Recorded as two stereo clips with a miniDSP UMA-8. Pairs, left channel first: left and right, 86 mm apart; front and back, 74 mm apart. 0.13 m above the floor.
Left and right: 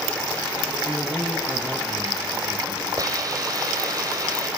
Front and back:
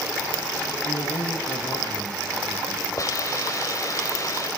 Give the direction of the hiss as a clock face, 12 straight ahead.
1 o'clock.